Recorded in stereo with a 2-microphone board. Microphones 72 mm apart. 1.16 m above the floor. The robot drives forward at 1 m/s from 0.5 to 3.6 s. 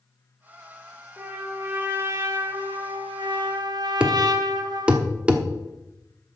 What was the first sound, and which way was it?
A trumpet, 25° right (ahead or behind).